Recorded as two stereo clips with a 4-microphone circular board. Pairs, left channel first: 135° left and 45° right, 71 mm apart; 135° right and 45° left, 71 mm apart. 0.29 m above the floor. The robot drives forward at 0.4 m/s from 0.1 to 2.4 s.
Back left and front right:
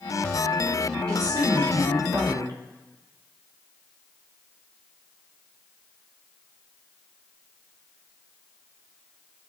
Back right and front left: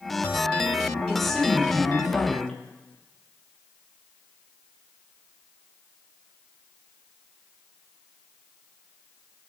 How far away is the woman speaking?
About 5 m.